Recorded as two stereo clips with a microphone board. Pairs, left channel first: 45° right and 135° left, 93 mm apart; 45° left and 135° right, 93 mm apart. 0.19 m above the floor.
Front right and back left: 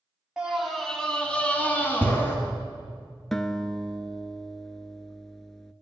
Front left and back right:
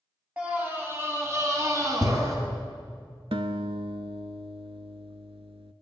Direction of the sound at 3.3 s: 130° right.